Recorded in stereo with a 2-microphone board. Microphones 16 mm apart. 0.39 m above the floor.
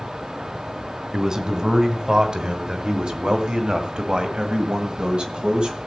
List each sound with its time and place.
1.1 s a man speaking: 35° right (ahead or behind), 2.5 m; by 5.8 s 60° right (ahead or behind), 2.5 m